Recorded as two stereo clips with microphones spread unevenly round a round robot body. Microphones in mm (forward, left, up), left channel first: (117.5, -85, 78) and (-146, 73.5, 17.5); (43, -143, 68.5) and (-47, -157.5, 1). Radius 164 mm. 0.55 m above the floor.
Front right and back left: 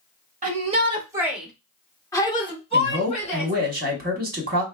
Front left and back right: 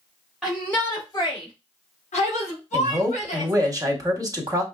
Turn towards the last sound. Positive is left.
turn(degrees=-160)